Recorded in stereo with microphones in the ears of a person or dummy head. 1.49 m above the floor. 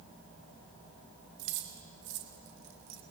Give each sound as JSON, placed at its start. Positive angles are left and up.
{"t": 1.4, "sound": "keys jangling", "side_deg": -70, "distance_m": 2.5}